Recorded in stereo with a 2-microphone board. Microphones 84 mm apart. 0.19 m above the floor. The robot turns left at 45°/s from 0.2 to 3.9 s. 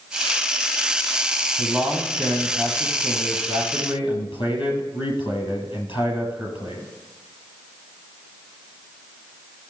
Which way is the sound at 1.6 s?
165° right.